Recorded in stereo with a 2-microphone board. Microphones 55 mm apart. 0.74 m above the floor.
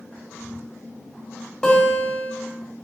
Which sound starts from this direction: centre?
A guitar, at 1.6 s.